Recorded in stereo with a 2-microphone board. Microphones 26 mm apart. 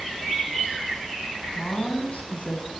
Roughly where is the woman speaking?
Left.